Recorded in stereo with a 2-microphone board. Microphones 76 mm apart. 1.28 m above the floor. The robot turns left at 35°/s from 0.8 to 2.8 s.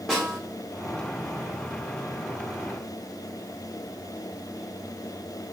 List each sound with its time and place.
0.1 s a snare drum: 5° right (ahead or behind), 1.2 m